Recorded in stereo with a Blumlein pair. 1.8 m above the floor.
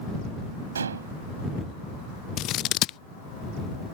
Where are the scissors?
35° left.